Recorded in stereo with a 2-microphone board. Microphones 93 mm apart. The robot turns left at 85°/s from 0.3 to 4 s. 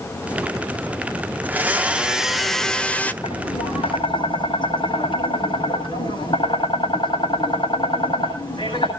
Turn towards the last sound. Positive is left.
turn(degrees=65)